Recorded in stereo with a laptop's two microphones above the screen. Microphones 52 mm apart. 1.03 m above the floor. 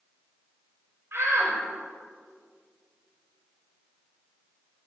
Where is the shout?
50° right (ahead or behind), 5.5 m.